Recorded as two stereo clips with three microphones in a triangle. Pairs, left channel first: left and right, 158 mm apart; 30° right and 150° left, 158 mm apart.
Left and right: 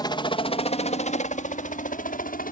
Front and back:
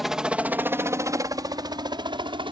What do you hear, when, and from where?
0.0 s a helicopter: 65° left; by 2.5 s 95° left